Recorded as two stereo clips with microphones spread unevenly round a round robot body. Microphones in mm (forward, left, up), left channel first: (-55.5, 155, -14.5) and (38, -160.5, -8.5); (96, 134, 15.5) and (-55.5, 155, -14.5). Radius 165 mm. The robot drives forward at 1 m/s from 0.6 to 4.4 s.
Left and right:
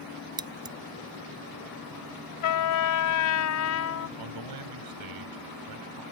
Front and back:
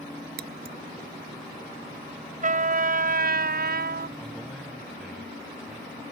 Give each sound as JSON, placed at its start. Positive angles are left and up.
{"t": 0.4, "sound": "scissors", "azimuth_deg": -150}
{"t": 2.4, "sound": "a trumpet", "azimuth_deg": 135}
{"t": 4.2, "sound": "a man speaking", "azimuth_deg": -95}